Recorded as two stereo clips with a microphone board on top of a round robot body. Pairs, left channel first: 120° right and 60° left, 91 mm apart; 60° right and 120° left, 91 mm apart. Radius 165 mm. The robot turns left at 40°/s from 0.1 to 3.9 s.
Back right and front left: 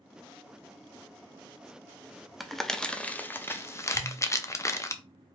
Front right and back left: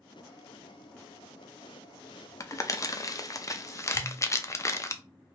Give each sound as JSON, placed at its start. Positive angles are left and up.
{"t": 2.4, "sound": "crumpling", "azimuth_deg": -30, "distance_m": 0.8}
{"t": 3.9, "sound": "a pop", "azimuth_deg": -20, "distance_m": 3.0}